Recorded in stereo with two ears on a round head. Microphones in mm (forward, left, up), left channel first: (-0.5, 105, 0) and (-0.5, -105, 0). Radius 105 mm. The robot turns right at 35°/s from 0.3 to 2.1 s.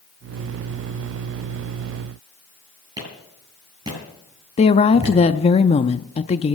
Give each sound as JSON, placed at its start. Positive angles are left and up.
{"t": 3.0, "sound": "a clap", "side_deg": -15, "distance_m": 10.0}
{"t": 4.6, "sound": "a woman speaking", "side_deg": 25, "distance_m": 0.6}